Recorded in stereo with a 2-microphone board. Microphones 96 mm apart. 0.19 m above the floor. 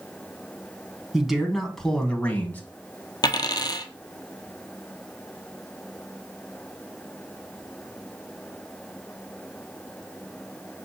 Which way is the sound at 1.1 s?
5° right (ahead or behind).